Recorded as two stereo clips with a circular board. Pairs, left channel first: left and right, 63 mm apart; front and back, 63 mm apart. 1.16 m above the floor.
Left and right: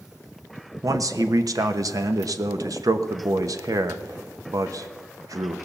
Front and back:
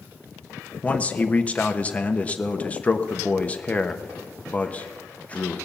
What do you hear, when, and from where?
0.8 s a man speaking: 70° right, 1.0 m